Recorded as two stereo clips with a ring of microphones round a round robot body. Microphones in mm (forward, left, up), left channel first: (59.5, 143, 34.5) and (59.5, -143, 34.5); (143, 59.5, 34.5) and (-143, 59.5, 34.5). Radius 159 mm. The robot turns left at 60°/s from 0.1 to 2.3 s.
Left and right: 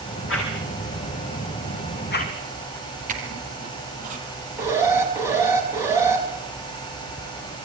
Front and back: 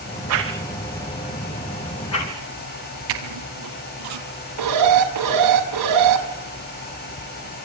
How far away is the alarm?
About 5.5 m.